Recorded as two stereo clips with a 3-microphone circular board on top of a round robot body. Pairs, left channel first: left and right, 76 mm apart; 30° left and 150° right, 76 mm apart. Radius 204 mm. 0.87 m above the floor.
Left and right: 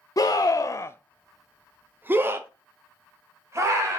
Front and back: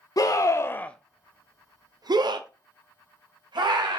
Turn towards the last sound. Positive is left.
turn(degrees=-140)